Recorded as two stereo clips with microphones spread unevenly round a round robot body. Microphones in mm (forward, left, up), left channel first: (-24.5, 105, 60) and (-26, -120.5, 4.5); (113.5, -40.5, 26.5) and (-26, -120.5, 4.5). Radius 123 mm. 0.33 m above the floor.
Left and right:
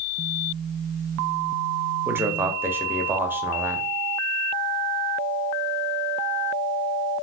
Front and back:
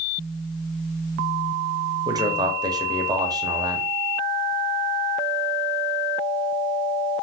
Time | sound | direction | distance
2.0 | a man speaking | 135° right | 0.9 m